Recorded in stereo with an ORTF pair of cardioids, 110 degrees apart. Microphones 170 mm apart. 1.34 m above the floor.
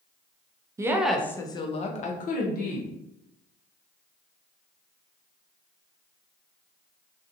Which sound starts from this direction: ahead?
A woman speaking, at 0.8 s.